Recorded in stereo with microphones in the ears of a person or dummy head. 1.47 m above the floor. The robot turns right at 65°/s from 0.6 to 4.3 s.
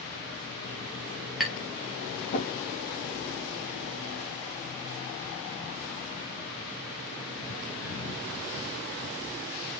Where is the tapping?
5° right (ahead or behind), 3.5 m; by 2.5 s 65° left (ahead or behind), 3.5 m.